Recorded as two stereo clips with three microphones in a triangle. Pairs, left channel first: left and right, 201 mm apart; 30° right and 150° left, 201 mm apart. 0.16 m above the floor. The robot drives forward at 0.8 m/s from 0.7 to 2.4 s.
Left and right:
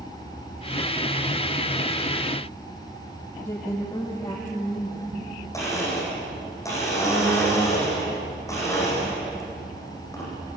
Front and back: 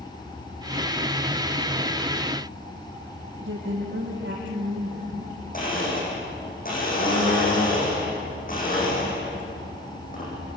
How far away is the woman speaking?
About 6 m.